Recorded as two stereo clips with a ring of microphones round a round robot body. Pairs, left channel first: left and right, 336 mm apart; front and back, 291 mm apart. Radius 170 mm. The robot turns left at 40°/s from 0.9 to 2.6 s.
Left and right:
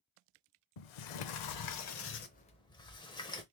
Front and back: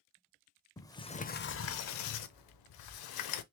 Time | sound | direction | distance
0.8 | a sliding door | 80° left | 0.6 m